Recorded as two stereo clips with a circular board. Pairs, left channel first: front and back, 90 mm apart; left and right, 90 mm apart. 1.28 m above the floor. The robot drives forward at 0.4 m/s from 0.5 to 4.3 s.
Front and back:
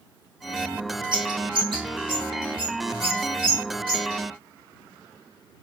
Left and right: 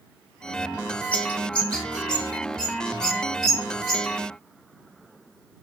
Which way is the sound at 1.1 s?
160° left.